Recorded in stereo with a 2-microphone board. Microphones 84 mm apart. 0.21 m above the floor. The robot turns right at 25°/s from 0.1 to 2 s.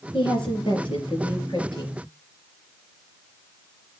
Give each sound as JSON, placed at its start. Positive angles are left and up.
{"t": 0.1, "sound": "a woman speaking", "azimuth_deg": 70, "distance_m": 4.0}